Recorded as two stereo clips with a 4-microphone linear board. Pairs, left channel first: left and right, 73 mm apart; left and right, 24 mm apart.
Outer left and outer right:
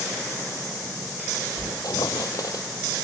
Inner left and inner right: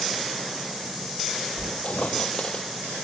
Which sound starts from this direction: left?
A squeak, at 1.6 s.